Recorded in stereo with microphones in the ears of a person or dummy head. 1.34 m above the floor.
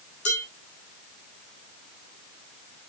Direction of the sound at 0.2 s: 40° left (ahead or behind).